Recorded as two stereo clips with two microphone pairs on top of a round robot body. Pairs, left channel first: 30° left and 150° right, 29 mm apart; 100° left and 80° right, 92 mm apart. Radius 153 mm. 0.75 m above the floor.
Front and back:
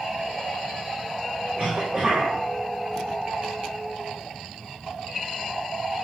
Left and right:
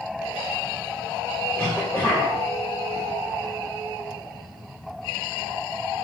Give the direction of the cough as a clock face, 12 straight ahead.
7 o'clock.